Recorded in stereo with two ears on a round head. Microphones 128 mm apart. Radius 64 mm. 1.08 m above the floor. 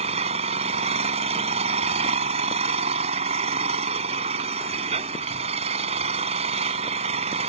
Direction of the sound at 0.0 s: 45° right (ahead or behind).